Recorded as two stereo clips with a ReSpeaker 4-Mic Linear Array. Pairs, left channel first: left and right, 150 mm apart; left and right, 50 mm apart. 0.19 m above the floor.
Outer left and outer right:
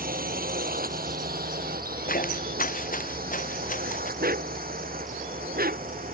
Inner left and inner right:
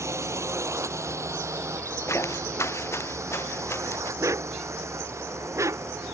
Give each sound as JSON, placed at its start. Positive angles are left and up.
{"t": 0.0, "sound": "a drone", "side_deg": -75}
{"t": 2.1, "sound": "footsteps", "side_deg": 70}
{"t": 4.2, "sound": "a dog barking", "side_deg": -90}